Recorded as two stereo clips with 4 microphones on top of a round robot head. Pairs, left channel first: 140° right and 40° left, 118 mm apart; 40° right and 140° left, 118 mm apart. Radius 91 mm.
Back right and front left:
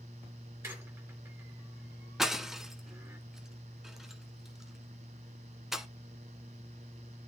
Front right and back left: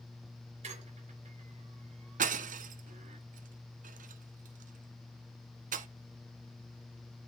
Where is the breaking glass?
125° left, 0.9 m.